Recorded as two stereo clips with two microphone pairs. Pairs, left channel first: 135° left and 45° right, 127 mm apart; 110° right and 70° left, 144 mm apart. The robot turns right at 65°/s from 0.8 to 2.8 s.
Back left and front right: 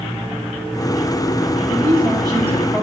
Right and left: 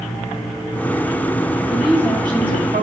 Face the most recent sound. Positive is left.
turn(degrees=50)